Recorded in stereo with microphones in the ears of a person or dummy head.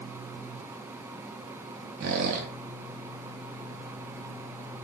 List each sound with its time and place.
2.0 s a squeak: 45° right (ahead or behind), 0.8 m